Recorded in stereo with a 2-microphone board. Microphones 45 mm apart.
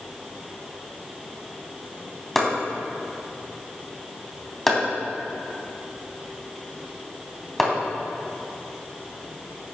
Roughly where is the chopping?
Centre.